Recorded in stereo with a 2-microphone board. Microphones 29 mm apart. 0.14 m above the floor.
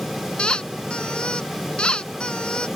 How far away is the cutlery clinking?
I don't hear cutlery clinking.